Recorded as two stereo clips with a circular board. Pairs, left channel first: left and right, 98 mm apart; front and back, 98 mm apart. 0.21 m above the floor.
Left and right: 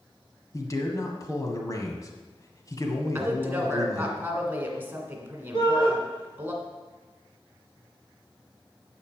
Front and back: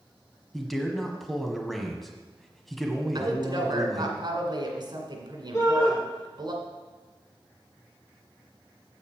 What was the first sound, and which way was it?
A man speaking, 85° left.